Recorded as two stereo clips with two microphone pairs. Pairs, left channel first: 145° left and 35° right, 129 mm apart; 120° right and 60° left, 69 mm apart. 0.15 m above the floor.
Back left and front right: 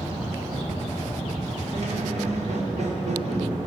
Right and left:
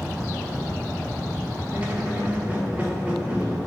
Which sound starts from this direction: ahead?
A squeak, at 1.7 s.